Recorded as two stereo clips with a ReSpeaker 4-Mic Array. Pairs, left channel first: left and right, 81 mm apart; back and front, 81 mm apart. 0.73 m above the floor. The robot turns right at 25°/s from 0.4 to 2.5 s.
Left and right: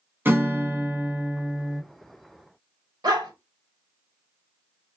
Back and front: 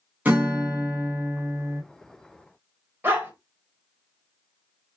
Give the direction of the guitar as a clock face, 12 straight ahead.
2 o'clock.